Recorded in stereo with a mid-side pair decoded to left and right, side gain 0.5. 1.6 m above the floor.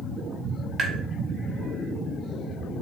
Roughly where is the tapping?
Ahead right.